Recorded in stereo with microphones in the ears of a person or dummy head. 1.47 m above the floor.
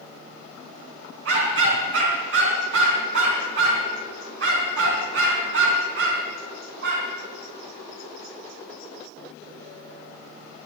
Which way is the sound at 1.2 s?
75° right (ahead or behind).